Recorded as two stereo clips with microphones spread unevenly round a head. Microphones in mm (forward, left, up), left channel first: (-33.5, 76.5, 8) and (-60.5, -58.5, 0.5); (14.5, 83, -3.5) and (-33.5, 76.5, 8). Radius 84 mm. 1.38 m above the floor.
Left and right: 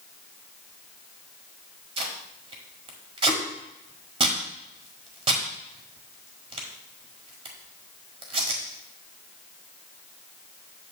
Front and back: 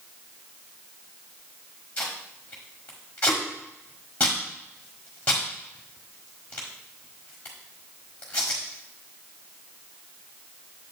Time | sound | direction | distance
2.0 | tape being pulled | 70° right | 1.4 m